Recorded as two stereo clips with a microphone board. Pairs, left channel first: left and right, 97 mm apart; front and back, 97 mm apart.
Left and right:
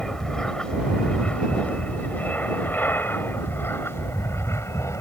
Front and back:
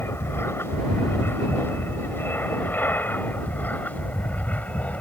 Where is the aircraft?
15° left; by 5.0 s 65° left.